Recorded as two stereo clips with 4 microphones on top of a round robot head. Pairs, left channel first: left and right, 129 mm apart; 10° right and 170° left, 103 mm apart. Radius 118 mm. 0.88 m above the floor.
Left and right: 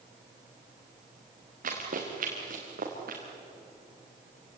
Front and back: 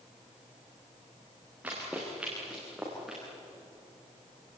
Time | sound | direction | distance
1.6 | running footsteps | 110° right | 5 m